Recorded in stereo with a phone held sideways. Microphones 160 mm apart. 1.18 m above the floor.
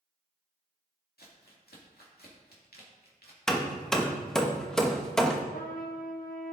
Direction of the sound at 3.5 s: 5° left (ahead or behind).